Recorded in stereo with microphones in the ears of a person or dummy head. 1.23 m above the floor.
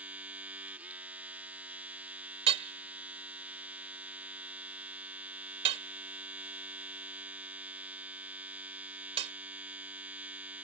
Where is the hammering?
35° right (ahead or behind).